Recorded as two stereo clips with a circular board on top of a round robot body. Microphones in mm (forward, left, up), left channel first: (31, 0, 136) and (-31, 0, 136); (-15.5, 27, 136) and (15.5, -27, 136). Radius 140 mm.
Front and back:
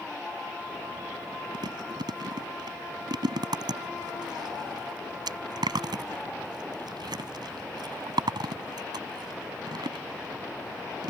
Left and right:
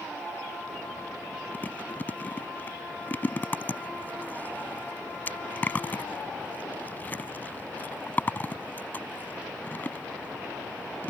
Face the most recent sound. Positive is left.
turn(degrees=-175)